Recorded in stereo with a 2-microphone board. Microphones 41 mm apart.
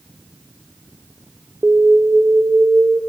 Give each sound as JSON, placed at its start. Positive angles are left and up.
{"t": 1.6, "sound": "an alarm", "side_deg": -65, "distance_m": 1.3}